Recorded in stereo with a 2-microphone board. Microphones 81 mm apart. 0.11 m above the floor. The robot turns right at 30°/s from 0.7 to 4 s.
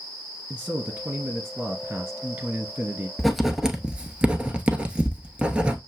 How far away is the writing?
About 0.7 m.